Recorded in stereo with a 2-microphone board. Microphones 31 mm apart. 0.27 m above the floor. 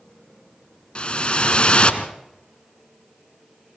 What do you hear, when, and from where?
0.9 s a whoosh: 40° left (ahead or behind), 1.3 m